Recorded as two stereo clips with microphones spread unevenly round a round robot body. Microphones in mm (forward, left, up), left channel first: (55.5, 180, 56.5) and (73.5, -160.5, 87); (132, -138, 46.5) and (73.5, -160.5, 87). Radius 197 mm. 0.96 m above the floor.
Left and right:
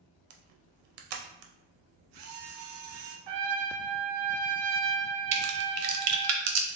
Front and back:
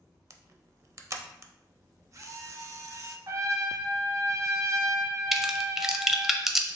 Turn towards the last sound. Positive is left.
turn(degrees=-45)